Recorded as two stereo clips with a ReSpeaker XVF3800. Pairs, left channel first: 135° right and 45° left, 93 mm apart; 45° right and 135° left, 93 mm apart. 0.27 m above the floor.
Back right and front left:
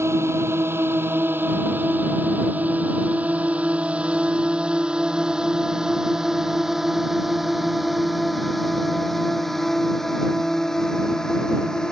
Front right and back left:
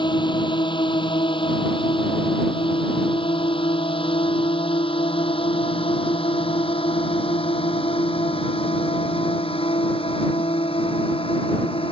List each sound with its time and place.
0.0 s a drone: 15° right; by 11.9 s 50° right